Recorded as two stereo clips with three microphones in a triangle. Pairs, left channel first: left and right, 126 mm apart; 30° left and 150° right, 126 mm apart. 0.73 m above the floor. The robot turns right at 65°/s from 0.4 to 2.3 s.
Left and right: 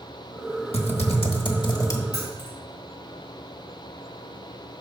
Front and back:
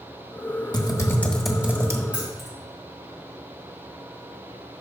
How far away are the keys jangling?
About 3 m.